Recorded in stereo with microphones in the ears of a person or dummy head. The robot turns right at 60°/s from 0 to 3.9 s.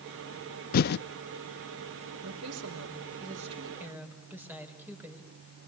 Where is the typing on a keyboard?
45° left (ahead or behind), 0.5 m; by 1.0 s 50° left (ahead or behind), 0.5 m.